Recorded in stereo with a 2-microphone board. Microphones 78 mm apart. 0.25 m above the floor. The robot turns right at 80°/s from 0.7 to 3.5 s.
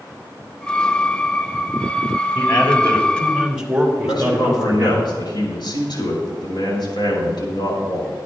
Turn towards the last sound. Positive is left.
turn(degrees=65)  # may be behind; listen again after turning